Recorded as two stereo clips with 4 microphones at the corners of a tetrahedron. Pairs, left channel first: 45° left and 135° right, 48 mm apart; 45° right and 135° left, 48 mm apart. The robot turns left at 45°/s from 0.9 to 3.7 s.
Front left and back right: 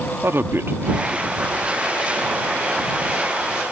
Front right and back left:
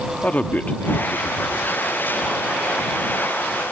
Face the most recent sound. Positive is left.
turn(degrees=135)